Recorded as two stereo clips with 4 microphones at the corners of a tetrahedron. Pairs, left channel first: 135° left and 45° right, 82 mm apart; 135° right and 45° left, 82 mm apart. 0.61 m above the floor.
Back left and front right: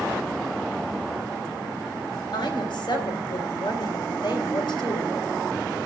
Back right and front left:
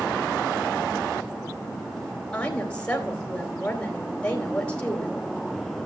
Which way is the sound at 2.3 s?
150° left.